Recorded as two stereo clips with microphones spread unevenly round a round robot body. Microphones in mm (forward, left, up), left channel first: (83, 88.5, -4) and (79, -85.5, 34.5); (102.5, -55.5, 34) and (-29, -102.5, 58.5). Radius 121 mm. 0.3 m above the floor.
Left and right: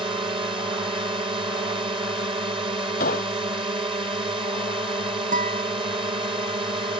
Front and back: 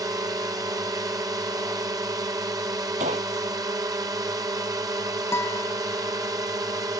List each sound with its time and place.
0.0 s a drone: 130° right
3.0 s a gunshot: 145° left
5.3 s a guitar: 55° right